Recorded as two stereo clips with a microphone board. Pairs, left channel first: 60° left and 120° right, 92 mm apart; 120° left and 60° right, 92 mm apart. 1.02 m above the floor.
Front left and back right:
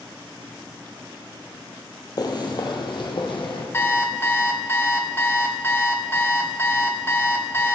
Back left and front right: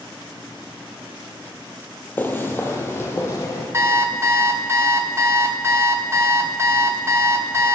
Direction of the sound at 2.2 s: 60° left.